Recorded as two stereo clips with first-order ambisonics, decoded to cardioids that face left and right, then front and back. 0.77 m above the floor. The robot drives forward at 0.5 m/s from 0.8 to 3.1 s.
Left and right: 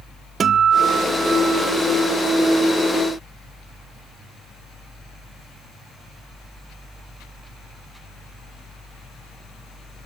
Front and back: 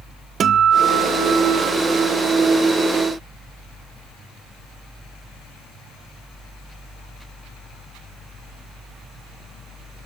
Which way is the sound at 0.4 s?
140° right.